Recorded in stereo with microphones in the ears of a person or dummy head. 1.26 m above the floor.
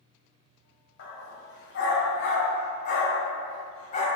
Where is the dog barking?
65° left (ahead or behind), 2 m; by 4.1 s 40° left (ahead or behind), 2.5 m.